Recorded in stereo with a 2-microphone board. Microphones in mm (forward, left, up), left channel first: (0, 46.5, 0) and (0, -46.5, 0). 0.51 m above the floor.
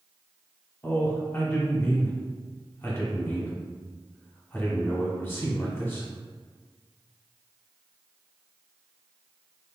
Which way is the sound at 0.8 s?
25° left (ahead or behind).